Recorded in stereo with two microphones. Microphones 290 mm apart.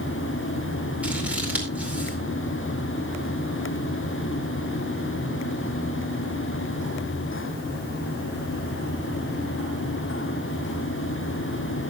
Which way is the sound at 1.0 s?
5° right (ahead or behind).